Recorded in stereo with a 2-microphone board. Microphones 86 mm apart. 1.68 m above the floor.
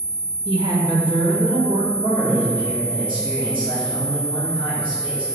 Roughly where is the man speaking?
Right.